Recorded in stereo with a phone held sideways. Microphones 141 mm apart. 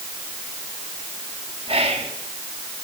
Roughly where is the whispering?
Right.